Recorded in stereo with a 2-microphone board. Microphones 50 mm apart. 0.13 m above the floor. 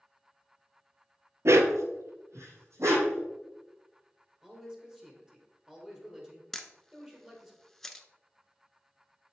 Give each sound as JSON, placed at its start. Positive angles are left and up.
{"t": 1.4, "sound": "a dog barking", "side_deg": -70, "distance_m": 0.6}
{"t": 4.4, "sound": "a man speaking", "side_deg": -15, "distance_m": 2.5}
{"t": 6.5, "sound": "a camera shutter", "side_deg": 10, "distance_m": 0.6}